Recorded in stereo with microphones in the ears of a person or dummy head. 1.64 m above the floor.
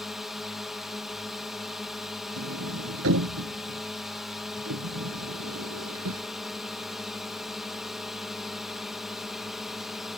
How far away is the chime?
No chime in this recording.